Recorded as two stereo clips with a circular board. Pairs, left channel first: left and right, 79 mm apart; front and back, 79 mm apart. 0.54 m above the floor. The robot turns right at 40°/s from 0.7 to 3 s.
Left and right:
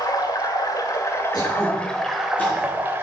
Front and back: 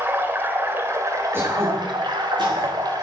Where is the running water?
120° left, 1.6 m; by 3.0 s 150° right, 1.6 m.